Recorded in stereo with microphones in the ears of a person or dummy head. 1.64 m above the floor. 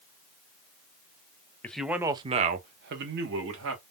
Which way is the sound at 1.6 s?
10° left (ahead or behind).